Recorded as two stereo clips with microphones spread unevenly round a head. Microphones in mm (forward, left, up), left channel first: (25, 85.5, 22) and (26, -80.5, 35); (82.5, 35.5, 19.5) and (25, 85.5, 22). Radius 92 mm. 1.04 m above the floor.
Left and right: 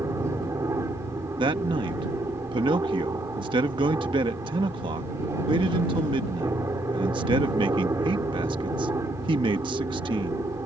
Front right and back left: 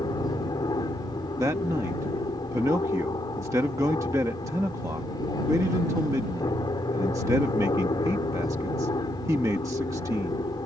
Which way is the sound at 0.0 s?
15° right.